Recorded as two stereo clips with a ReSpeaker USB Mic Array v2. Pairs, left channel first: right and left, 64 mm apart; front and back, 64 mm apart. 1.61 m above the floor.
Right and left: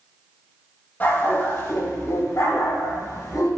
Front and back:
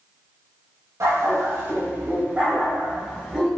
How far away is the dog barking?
About 3 m.